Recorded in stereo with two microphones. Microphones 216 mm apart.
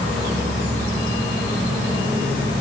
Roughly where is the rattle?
I don't hear a rattle.